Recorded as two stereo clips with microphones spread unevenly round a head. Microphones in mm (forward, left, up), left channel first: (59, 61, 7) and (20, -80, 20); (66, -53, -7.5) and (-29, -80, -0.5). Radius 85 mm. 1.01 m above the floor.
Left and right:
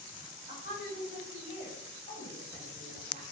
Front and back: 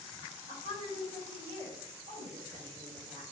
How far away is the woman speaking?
About 3 m.